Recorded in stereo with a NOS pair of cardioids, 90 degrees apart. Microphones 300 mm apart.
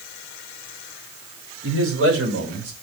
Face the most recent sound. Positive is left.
turn(degrees=-60)